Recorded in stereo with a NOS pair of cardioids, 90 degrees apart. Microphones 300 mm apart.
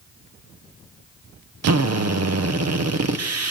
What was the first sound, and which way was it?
A drill, 60° right.